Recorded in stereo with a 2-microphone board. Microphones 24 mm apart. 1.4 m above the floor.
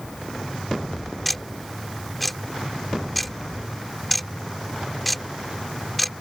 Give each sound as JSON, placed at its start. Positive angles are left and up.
{"t": 1.2, "sound": "ticking", "side_deg": 5}